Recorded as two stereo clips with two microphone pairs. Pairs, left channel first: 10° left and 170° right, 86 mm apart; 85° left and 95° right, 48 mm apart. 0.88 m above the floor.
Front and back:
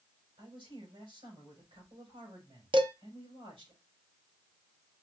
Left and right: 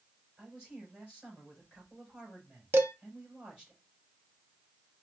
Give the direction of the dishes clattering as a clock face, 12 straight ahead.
5 o'clock.